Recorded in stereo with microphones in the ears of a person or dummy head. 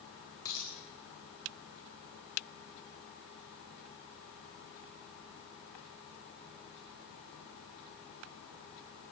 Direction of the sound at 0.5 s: 20° left (ahead or behind).